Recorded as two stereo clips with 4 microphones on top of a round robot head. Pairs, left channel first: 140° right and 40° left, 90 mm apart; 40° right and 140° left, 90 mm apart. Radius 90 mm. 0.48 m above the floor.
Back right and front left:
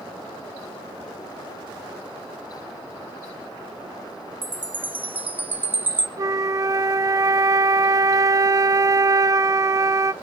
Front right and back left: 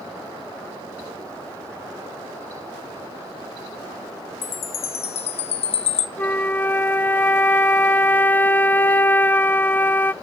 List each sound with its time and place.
4.4 s a chime: 30° right, 0.6 m
6.2 s a flute: 20° left, 0.6 m